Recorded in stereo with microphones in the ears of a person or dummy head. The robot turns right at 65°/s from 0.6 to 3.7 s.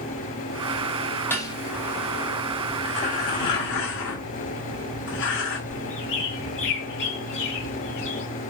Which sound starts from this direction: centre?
Dishes clattering, at 1.3 s.